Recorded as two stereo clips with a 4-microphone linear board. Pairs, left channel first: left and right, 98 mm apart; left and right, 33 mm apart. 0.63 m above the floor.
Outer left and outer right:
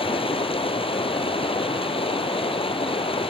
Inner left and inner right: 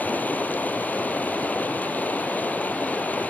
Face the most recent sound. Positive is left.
turn(degrees=65)  # may be behind; listen again after turning